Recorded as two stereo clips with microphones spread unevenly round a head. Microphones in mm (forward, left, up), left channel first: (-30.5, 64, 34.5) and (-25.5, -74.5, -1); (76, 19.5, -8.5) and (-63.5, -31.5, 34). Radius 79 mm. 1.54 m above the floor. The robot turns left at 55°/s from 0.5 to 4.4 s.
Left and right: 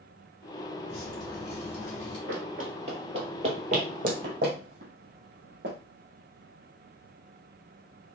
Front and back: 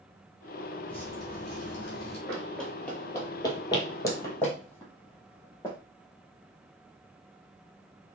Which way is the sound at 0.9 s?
100° left.